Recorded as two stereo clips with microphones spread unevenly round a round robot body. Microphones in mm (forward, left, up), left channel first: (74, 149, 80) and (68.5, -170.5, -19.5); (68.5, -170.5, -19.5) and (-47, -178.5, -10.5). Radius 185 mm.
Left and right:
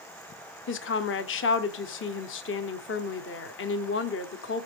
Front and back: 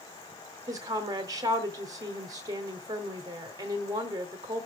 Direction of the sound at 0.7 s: 145° left.